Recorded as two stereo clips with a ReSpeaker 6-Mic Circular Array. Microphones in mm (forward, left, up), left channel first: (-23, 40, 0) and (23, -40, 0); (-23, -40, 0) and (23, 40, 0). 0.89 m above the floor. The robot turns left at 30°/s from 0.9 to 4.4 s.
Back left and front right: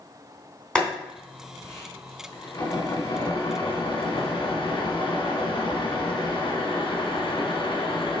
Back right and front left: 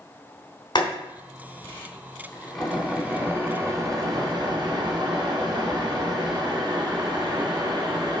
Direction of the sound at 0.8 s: 160° right.